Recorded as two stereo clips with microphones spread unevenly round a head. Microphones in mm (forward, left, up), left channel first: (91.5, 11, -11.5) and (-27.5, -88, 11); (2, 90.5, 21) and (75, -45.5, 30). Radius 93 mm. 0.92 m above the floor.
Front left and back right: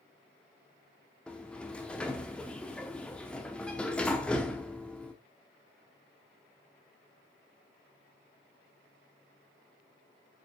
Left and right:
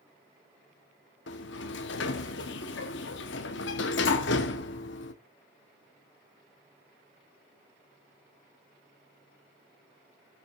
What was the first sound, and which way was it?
A sliding door, 130° left.